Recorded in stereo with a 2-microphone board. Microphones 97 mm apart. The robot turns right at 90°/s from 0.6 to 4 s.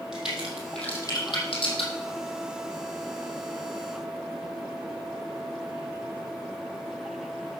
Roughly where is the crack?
Centre.